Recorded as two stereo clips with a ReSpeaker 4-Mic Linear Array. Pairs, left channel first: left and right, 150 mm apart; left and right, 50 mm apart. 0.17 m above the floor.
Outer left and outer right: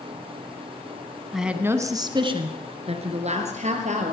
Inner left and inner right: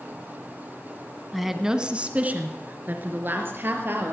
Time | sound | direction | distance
1.3 | a woman speaking | centre (ahead or behind) | 1.1 m